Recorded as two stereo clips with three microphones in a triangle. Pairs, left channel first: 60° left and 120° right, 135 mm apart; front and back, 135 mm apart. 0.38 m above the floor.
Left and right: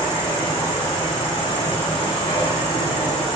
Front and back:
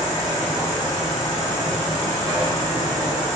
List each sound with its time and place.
0.0 s an insect: 65° left, 1.4 m